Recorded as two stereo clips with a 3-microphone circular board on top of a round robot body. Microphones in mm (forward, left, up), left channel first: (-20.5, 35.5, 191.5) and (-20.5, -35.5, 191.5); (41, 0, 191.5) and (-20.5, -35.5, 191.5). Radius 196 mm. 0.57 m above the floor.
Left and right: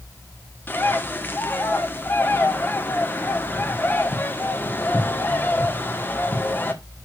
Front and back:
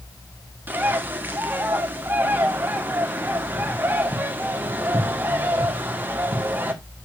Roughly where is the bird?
Behind left.